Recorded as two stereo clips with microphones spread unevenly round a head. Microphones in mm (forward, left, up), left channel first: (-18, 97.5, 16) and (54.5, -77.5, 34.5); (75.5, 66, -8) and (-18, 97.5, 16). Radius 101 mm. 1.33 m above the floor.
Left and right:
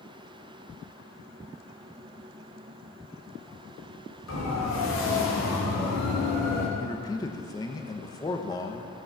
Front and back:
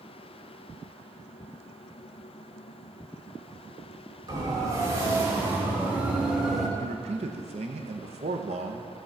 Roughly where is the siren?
Behind left.